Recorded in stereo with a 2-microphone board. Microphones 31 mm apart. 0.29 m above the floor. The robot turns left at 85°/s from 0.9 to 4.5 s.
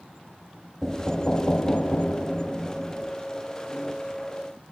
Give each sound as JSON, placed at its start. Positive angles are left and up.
{"t": 0.8, "sound": "knocking", "azimuth_deg": 170, "distance_m": 1.4}